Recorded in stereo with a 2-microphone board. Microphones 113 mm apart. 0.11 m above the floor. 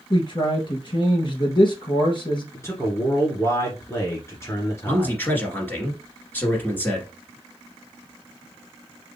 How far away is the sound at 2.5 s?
About 1.6 m.